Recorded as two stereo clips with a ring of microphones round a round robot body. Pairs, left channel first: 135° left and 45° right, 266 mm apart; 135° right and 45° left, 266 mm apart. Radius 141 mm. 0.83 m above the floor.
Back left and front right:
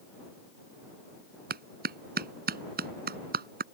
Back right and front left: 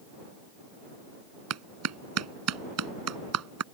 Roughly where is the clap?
Ahead.